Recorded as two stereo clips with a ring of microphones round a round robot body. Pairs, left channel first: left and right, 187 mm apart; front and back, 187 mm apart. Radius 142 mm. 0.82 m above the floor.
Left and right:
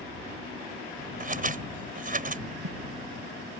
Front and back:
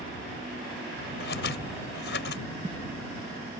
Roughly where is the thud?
Right.